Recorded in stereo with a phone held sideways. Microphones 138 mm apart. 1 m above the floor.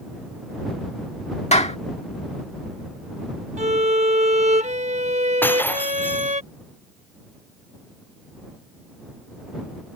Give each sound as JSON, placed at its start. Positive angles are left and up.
{"t": 1.5, "sound": "a clap", "side_deg": 50}
{"t": 3.6, "sound": "a violin", "side_deg": -55}
{"t": 5.4, "sound": "breaking glass", "side_deg": 15}